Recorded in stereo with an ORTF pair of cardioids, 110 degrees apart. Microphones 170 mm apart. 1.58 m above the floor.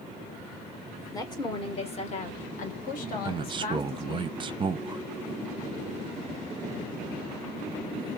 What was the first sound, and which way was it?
A woman speaking, 20° left.